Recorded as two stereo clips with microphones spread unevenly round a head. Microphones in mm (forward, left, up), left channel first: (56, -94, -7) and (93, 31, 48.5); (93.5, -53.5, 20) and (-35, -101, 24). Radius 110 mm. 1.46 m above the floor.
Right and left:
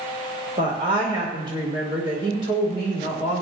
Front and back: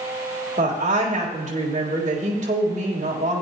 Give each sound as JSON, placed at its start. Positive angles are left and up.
{"t": 0.6, "sound": "a woman speaking", "azimuth_deg": 145, "distance_m": 2.5}